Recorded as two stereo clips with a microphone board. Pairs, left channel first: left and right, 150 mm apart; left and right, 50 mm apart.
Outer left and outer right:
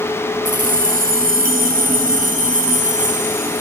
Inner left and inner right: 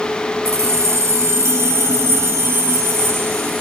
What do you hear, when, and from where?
0.5 s keys jangling: 60° right (ahead or behind), 1.4 m; by 3.6 s 55° right (ahead or behind), 3 m